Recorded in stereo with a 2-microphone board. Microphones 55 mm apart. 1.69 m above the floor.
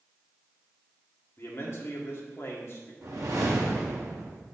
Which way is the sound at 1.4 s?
50° left (ahead or behind).